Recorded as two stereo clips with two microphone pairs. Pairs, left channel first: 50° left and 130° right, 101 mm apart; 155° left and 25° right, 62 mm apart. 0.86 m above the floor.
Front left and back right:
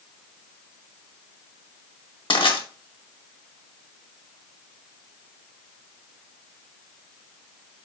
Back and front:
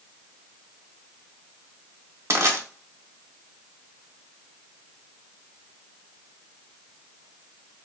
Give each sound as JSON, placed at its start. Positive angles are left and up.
{"t": 2.3, "sound": "crushing", "azimuth_deg": 15, "distance_m": 0.9}